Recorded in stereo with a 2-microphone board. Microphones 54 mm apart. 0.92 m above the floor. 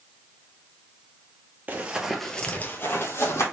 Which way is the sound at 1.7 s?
30° right (ahead or behind).